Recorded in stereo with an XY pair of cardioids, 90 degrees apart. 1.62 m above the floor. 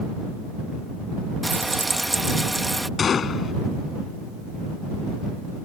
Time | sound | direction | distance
1.4 | frying | 15° right | ?
3.0 | a gunshot | 55° left | ?